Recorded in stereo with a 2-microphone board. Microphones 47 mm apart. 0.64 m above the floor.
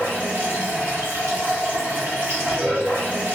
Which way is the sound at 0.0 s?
50° right (ahead or behind).